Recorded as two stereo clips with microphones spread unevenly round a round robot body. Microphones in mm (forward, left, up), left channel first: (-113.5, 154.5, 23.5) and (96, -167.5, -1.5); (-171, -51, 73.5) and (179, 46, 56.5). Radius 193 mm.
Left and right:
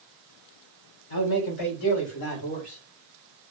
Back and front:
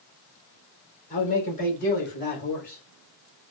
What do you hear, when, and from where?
1.1 s a man speaking: 120° left, 3.5 m; by 2.8 s 135° left, 4 m